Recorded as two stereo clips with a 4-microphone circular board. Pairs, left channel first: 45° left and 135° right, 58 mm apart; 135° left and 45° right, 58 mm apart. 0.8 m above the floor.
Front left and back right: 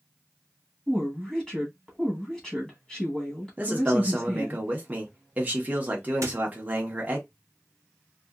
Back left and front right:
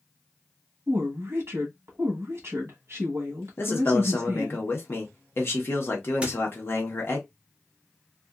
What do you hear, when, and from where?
0.9 s a woman speaking: 35° right, 1.2 m
3.6 s a man speaking: 170° left, 1.0 m
6.2 s a squeak: 115° right, 0.8 m